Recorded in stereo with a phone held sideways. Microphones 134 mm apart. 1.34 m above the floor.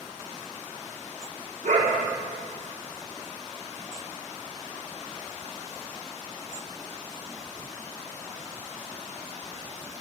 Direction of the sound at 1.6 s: 80° right.